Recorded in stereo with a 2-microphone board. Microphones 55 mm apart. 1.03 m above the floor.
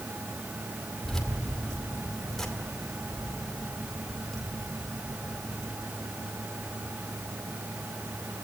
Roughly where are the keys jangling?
Centre.